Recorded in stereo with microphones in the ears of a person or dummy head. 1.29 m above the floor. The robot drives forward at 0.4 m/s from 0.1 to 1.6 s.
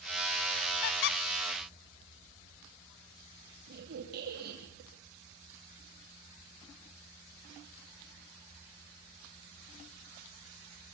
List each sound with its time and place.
0.8 s a squeak: 50° left (ahead or behind), 0.5 m
3.7 s a squeak: 50° right (ahead or behind), 4.5 m